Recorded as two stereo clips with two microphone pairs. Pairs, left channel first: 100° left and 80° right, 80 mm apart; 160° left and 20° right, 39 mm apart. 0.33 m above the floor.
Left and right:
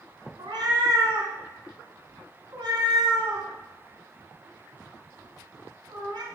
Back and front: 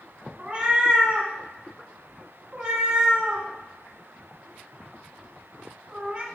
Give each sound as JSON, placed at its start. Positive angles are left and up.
{"t": 0.4, "sound": "a cat meowing", "azimuth_deg": -80, "distance_m": 1.1}